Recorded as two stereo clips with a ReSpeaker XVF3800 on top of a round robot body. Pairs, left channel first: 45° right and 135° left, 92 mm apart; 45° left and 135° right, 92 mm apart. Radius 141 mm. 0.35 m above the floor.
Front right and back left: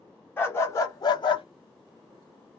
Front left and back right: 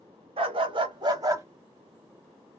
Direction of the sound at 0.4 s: 115° right.